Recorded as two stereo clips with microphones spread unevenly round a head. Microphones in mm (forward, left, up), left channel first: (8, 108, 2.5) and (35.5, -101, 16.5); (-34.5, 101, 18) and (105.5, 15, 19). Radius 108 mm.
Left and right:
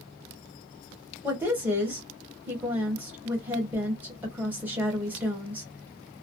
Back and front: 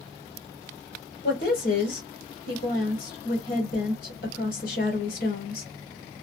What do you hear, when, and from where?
1.2 s a woman speaking: 165° right, 1.1 m